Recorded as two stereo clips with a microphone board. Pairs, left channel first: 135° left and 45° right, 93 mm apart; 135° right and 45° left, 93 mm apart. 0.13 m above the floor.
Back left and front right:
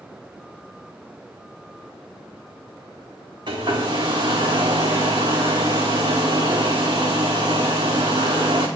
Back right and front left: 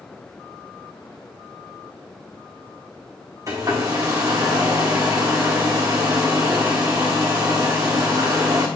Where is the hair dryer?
5° right, 2 m.